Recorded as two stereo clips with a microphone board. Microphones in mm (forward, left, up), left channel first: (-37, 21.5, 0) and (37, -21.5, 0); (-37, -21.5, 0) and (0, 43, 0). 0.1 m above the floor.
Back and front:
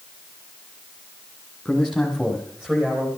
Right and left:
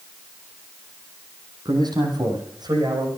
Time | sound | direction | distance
1.6 | a man speaking | 60° left | 5 m